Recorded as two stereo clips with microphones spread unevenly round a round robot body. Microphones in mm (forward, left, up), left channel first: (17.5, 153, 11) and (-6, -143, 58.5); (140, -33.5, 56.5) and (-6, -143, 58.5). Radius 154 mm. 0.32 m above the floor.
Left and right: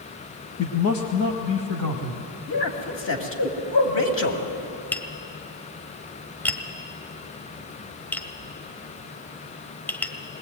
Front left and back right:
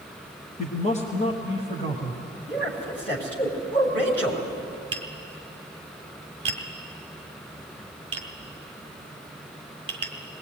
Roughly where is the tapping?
Behind.